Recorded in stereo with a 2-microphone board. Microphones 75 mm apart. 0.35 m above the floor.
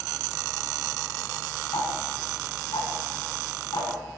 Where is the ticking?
70° left (ahead or behind), 3 m.